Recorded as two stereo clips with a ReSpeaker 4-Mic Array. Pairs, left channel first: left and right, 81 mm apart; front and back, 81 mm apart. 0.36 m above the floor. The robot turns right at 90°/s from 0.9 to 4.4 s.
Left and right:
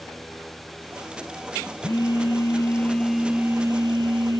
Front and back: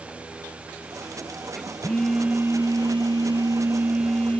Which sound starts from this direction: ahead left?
A phone buzzing, at 1.8 s.